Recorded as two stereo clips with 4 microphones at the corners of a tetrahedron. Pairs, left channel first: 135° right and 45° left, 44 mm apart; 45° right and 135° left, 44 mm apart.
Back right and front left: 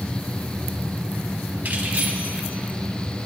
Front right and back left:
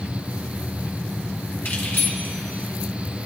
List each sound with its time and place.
1.6 s keys jangling: 5° right, 4 m; by 3.3 s 20° right, 4 m